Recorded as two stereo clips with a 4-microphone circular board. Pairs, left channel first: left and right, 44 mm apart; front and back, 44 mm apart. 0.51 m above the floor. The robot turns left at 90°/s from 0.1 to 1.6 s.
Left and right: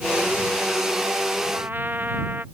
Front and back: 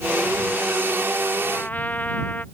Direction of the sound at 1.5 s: 40° right.